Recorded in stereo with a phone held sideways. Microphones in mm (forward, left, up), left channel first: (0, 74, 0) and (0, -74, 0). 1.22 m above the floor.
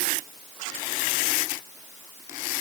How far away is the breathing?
I don't hear breathing.